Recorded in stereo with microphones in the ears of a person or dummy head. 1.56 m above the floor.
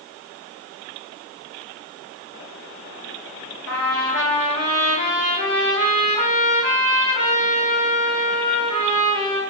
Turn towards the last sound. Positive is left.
turn(degrees=55)  # may be behind; listen again after turning